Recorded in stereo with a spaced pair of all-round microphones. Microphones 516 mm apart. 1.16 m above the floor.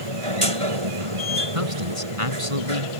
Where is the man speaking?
75° right (ahead or behind).